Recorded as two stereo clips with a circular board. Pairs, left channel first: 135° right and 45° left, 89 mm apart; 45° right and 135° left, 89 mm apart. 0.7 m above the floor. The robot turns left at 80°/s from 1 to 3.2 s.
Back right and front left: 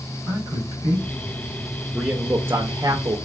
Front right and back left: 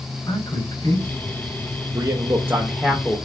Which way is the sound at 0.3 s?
Straight ahead.